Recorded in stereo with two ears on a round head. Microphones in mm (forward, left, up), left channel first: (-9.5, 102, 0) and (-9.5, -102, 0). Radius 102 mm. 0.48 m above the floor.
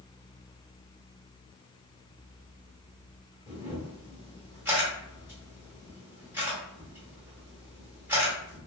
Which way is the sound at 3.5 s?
10° right (ahead or behind).